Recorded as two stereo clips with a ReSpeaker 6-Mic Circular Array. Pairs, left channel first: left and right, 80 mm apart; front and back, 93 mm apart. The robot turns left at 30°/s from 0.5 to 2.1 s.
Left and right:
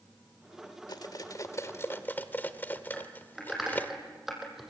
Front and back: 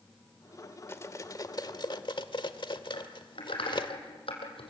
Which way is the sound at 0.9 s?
60° left.